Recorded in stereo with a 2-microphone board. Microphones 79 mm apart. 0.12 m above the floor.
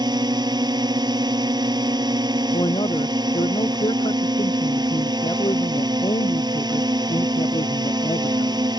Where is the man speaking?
75° left (ahead or behind).